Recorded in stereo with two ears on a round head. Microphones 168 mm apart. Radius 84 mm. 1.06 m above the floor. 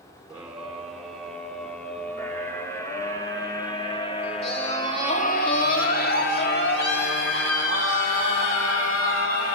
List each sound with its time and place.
0.3 s a scream: 5° right (ahead or behind), 3.5 m; by 9.6 s 80° left, 3.5 m